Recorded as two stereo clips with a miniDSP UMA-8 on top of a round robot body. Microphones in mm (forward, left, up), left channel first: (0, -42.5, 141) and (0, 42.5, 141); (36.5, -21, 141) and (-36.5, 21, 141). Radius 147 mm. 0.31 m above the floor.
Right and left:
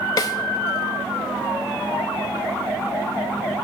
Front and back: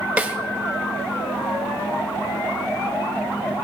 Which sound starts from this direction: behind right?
A snare drum, at 0.2 s.